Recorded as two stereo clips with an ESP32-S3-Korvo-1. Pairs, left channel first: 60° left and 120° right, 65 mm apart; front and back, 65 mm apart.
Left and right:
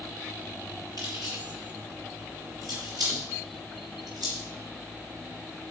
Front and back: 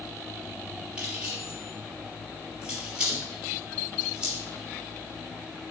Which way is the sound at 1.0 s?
110° right.